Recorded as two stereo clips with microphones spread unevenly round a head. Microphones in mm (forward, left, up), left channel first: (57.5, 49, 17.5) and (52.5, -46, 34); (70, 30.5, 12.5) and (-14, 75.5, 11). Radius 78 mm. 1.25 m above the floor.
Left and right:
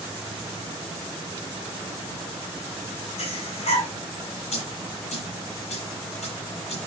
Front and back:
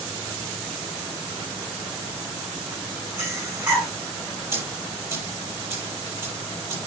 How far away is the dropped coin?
About 9 m.